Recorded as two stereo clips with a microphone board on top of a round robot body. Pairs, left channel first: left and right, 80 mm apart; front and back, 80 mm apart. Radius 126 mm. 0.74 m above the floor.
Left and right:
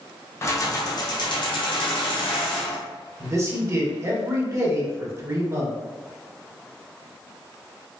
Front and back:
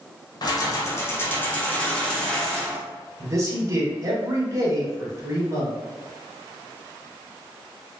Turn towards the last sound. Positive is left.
turn(degrees=-135)